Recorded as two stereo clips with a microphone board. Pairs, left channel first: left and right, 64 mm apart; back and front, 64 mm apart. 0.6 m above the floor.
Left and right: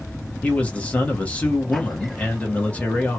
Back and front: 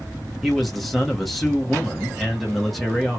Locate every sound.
0.4 s a man speaking: 85° left, 1.2 m